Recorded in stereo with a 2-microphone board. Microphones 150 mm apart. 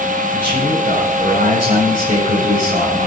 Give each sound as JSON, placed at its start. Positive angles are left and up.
{"t": 0.3, "sound": "a man speaking", "side_deg": 55, "distance_m": 10.0}